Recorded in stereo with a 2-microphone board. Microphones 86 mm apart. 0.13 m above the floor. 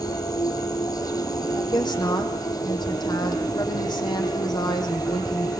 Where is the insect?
50° left (ahead or behind), 1.0 m.